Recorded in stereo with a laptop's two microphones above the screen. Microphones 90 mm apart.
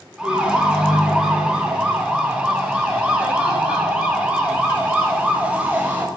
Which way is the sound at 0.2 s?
10° right (ahead or behind).